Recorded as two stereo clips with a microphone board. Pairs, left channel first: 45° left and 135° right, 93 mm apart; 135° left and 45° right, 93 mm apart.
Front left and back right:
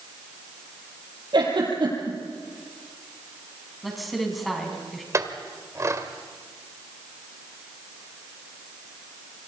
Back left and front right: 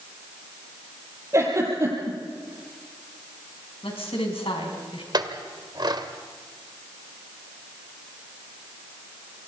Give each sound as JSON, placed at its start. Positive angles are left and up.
{"t": 1.3, "sound": "a giggle", "azimuth_deg": -100, "distance_m": 5.5}
{"t": 3.8, "sound": "a woman speaking", "azimuth_deg": 135, "distance_m": 5.0}
{"t": 5.1, "sound": "a clink", "azimuth_deg": -80, "distance_m": 1.6}